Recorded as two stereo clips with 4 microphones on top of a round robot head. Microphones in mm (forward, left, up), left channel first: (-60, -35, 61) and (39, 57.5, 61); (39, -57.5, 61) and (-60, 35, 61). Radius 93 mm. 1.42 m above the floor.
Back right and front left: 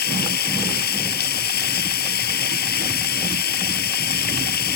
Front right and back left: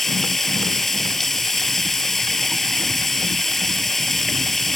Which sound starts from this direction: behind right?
Running water, at 0.0 s.